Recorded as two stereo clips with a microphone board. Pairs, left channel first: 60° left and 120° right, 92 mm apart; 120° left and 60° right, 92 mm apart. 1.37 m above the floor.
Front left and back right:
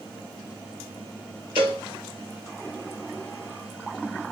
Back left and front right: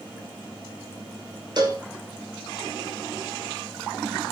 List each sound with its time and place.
1.6 s a cowbell: 100° right, 1.3 m